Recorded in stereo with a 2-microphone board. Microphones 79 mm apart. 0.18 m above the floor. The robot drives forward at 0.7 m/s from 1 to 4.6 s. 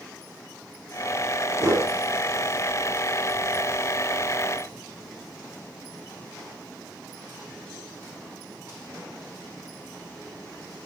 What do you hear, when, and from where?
1.6 s a whoosh: 40° right (ahead or behind), 4 m